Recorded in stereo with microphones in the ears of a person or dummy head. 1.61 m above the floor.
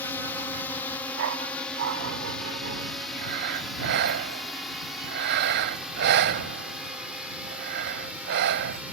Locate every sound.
0.0 s a drone: 10° left (ahead or behind); by 8.9 s 10° right (ahead or behind)
1.2 s a dog barking: 65° right (ahead or behind)
3.2 s breathing: 55° right (ahead or behind)